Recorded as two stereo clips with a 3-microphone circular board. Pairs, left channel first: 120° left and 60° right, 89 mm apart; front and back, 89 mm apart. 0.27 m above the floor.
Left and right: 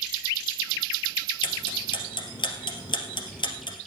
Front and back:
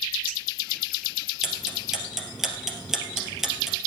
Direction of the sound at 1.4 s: 95° left.